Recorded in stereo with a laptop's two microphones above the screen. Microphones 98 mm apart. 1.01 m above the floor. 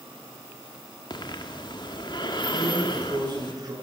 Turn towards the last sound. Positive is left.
turn(degrees=-45)  # may be behind; listen again after turning